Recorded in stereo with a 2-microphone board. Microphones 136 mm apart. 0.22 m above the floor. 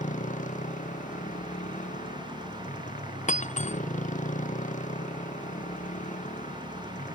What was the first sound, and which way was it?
A motorcycle, 65° left (ahead or behind).